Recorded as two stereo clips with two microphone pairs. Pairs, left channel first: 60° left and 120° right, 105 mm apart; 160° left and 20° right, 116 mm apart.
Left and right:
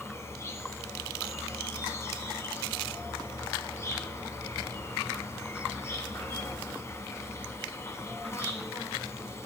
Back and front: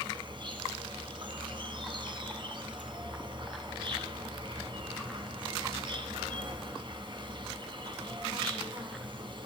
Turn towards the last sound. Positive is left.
turn(degrees=5)